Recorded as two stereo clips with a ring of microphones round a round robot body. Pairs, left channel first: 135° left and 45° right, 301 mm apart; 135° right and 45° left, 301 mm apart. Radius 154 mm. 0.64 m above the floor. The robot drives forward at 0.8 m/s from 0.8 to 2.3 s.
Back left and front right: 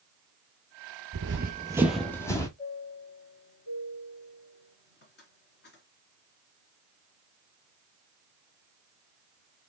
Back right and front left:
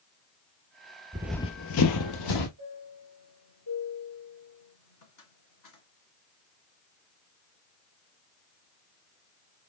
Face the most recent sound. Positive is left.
turn(degrees=-165)